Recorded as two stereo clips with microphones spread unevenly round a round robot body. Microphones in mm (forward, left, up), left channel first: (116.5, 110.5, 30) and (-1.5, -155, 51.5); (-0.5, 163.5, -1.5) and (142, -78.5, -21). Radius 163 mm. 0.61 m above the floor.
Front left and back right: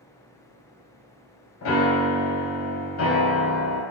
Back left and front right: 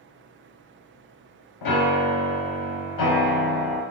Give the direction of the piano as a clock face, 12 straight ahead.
8 o'clock.